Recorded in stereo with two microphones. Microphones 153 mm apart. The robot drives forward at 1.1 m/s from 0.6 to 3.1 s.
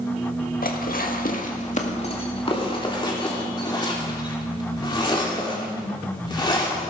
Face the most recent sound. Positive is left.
turn(degrees=30)  # may be behind; listen again after turning